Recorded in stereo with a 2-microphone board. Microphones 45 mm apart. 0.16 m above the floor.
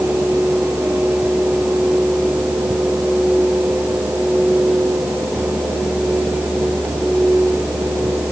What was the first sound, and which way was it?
Only background noise.